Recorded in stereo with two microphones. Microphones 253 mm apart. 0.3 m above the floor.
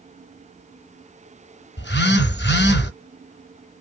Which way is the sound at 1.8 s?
45° left (ahead or behind).